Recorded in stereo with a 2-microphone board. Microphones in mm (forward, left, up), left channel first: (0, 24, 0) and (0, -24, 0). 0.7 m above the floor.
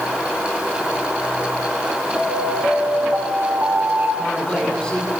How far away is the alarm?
About 5 m.